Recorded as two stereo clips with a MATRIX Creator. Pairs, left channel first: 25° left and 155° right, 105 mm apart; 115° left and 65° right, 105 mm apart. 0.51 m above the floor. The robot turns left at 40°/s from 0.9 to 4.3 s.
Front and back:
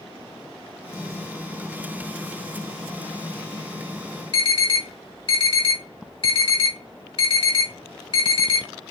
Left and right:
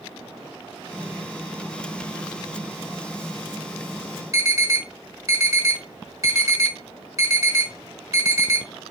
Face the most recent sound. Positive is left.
turn(degrees=-10)